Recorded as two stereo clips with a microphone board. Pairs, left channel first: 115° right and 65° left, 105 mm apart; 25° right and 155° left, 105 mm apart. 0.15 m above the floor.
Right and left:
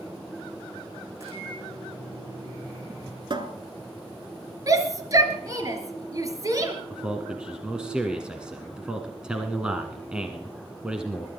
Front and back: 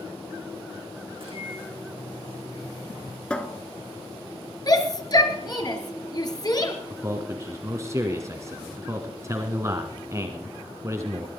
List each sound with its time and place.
1.1 s a microwave: 130° left, 7 m
3.3 s a cupboard door: 55° left, 1.1 m
4.7 s a shout: 20° left, 2.5 m
6.9 s a man speaking: 140° left, 1.1 m